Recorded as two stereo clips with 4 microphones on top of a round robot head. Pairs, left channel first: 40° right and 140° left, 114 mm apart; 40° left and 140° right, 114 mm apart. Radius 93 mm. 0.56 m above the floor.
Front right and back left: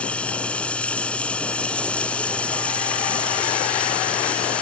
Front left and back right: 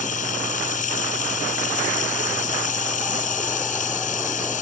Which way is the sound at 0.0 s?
40° left.